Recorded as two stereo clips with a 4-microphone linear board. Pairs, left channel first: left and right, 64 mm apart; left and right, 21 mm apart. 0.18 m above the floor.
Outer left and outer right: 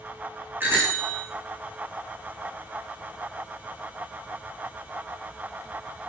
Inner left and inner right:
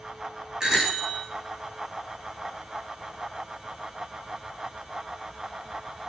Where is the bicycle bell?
30° right (ahead or behind), 8.5 m.